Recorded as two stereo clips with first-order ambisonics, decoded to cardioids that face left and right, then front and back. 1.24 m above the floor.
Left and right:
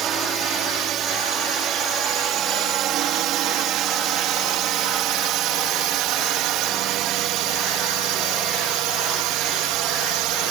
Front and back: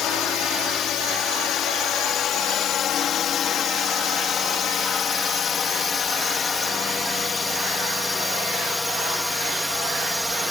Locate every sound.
0.0 s a drone: 40° right; by 10.5 s 90° right